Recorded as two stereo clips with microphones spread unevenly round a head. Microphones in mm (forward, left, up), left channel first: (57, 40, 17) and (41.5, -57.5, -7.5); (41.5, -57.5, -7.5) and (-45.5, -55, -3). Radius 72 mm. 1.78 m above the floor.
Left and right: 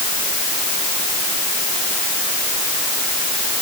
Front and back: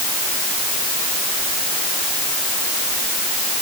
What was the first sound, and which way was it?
Only background noise.